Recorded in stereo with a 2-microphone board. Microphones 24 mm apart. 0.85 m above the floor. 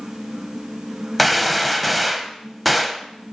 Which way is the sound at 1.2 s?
Centre (ahead or behind).